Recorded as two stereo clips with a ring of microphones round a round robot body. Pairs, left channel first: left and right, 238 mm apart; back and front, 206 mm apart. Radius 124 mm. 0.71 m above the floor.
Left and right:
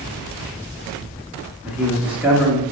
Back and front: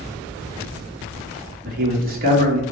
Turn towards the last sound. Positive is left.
turn(degrees=-5)